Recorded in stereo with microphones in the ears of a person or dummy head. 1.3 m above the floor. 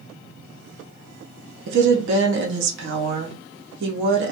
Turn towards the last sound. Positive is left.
turn(degrees=-65)  # may be behind; listen again after turning